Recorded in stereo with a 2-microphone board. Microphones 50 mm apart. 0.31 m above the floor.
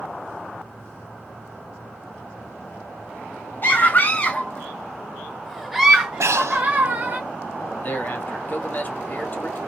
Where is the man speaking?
40° left (ahead or behind), 1.1 m.